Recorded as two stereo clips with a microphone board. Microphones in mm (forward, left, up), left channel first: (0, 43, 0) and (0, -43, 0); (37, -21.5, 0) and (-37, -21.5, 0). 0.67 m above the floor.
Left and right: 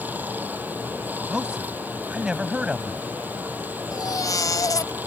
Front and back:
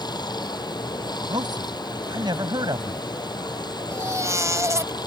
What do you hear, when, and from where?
0.0 s running water: 20° right
1.3 s a man speaking: 170° right
3.9 s a baby crying: 135° left